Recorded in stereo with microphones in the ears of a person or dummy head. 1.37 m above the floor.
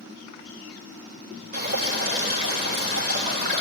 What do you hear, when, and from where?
1.5 s dripping: 40° right (ahead or behind), 4 m